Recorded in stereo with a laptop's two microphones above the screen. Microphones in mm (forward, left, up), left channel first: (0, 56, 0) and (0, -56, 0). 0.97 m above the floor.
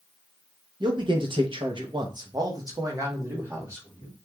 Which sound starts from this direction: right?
A man speaking, at 0.8 s.